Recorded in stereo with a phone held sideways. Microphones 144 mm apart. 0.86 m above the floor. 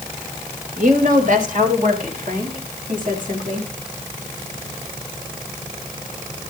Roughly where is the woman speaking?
Right.